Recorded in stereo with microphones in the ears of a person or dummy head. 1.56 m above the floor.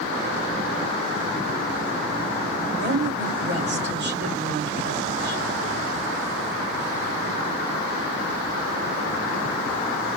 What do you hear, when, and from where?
2.8 s a woman speaking: 65° right (ahead or behind), 3 m